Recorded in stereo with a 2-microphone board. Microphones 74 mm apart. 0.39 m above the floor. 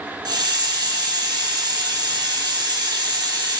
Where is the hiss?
80° right, 2.5 m.